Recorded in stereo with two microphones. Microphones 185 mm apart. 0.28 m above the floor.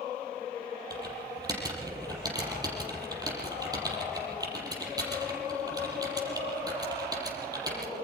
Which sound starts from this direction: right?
Typing on a keyboard, at 0.9 s.